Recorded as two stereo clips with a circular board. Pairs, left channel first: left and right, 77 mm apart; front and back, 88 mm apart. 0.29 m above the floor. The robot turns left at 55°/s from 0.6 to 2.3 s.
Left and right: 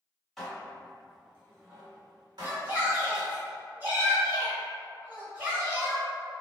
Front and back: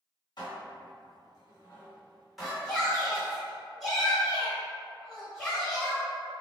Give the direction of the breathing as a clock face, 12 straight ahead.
No breathing in this recording.